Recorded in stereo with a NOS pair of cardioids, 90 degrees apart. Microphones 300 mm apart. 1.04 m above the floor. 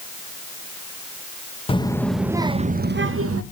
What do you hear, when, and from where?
1.7 s a child speaking: 20° left, 0.9 m; by 3.4 s 55° right, 0.9 m